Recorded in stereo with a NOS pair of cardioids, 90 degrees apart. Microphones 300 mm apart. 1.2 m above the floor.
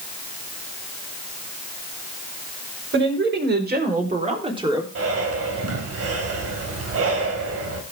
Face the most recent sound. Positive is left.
turn(degrees=-55)